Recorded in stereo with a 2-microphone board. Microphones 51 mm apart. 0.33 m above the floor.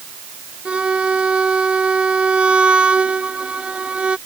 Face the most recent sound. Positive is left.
turn(degrees=-20)  # may be behind; listen again after turning